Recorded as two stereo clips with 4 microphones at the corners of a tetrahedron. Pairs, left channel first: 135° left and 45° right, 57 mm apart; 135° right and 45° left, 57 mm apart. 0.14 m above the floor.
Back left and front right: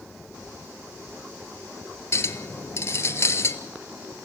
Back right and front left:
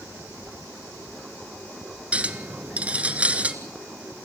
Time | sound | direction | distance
2.1 | a clink | 110° left | 1.5 m